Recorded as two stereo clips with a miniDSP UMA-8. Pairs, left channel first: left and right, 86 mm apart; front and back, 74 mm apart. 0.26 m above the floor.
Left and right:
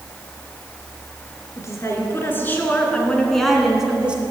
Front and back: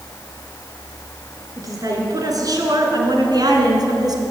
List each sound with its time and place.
1.6 s a woman speaking: 145° left, 4 m; by 4.2 s 165° right, 3 m